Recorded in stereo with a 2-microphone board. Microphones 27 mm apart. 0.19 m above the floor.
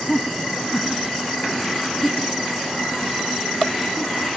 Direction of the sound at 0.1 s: 10° left (ahead or behind).